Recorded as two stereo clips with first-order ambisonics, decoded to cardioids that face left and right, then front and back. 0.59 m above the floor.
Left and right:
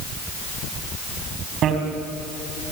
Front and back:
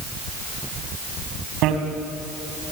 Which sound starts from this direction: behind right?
A bicycle bell, at 1.6 s.